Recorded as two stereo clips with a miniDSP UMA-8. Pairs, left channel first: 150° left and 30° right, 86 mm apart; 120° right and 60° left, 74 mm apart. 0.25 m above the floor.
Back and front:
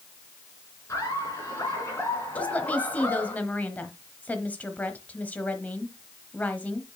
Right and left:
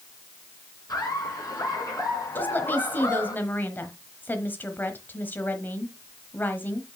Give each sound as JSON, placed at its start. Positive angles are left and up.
{"t": 0.9, "sound": "laughter", "azimuth_deg": -155, "distance_m": 3.5}
{"t": 2.4, "sound": "a woman speaking", "azimuth_deg": -155, "distance_m": 1.1}